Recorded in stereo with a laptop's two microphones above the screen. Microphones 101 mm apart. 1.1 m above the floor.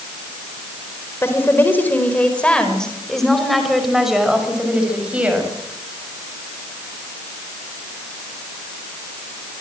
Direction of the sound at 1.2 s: 25° left (ahead or behind).